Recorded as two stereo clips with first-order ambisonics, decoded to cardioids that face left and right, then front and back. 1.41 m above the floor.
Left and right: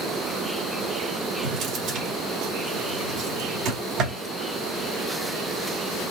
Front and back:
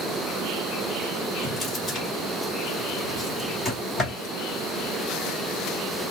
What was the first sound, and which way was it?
A drawer, 65° right.